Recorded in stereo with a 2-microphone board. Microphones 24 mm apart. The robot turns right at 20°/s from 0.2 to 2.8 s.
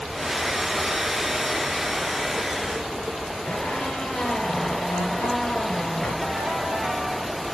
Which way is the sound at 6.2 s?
40° right (ahead or behind).